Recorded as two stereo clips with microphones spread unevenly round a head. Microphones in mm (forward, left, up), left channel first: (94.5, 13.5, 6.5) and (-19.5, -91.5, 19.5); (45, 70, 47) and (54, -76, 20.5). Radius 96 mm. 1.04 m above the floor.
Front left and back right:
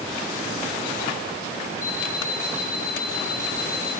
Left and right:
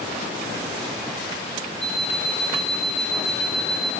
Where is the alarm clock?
10° left, 4 m.